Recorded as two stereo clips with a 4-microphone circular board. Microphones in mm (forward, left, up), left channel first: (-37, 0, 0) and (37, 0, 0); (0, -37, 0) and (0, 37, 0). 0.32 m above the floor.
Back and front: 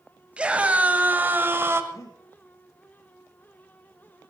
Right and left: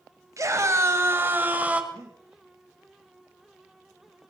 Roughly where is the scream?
Left.